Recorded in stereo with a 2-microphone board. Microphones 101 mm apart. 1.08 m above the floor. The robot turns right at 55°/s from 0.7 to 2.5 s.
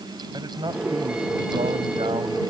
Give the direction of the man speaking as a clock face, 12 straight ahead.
5 o'clock.